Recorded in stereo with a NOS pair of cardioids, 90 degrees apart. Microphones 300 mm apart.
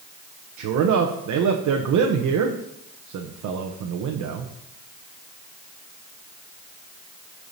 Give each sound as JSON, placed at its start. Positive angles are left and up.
{"t": 0.6, "sound": "a man speaking", "azimuth_deg": -70, "distance_m": 0.9}